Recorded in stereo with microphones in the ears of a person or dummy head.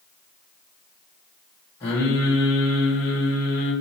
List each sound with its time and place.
1.8 s singing: 15° left (ahead or behind), 2.0 m